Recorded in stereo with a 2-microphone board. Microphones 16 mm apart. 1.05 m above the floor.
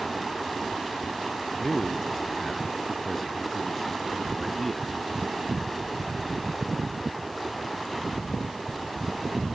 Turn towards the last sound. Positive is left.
turn(degrees=15)  # may be behind; listen again after turning